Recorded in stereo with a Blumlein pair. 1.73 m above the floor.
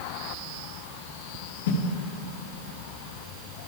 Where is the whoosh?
55° left, 0.8 m.